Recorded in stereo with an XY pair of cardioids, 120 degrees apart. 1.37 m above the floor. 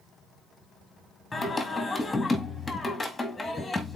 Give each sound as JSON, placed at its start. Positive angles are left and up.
{"t": 1.3, "sound": "singing", "azimuth_deg": 15, "distance_m": 2.0}